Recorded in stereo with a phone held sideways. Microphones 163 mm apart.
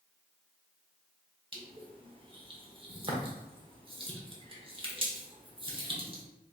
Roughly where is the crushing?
Right.